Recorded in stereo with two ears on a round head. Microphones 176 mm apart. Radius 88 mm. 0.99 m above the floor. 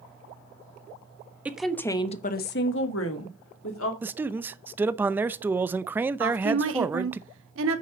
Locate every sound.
1.4 s a woman speaking: 10° right (ahead or behind), 1.3 m; by 3.9 s 75° left (ahead or behind), 2.5 m
4.0 s a man speaking: 10° right (ahead or behind), 0.5 m
6.2 s a woman speaking: 75° right (ahead or behind), 1.8 m